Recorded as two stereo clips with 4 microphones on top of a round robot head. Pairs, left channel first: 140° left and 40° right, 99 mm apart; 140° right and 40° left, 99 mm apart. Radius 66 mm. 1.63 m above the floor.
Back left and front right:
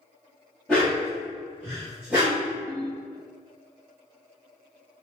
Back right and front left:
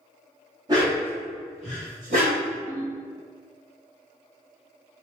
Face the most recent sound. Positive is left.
turn(degrees=0)